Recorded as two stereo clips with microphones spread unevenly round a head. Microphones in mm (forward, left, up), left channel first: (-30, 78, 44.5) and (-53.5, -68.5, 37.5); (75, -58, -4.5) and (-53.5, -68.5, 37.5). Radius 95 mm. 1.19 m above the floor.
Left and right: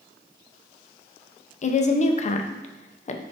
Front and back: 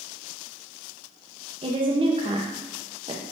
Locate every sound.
1.6 s a woman speaking: 120° left, 0.6 m